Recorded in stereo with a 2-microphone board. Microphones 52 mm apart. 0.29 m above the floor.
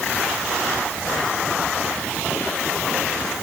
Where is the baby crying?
I don't hear a baby crying.